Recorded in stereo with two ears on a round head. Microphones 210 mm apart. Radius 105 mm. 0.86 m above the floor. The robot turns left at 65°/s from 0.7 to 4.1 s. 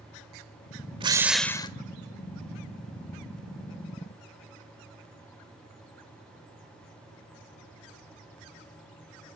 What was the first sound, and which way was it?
A drill, 155° right.